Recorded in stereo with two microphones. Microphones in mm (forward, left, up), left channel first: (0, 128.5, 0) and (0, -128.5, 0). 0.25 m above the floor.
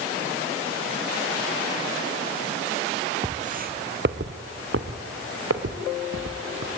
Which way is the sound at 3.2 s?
25° right (ahead or behind).